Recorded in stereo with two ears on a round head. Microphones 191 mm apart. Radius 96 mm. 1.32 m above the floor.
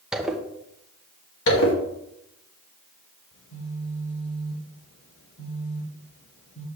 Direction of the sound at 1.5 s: 65° left (ahead or behind).